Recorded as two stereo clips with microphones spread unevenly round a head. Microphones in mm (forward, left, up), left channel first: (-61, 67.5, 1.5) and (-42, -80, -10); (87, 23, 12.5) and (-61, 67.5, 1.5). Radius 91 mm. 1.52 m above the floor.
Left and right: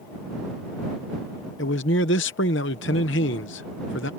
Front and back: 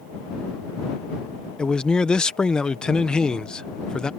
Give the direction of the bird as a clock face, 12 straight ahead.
I don't hear a bird.